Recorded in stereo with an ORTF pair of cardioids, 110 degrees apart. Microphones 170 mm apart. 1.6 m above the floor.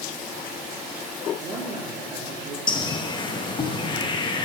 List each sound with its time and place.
1.4 s a woman speaking: 65° right, 2.5 m; by 2.6 s 80° right, 2.0 m
2.7 s a bird: 30° left, 0.7 m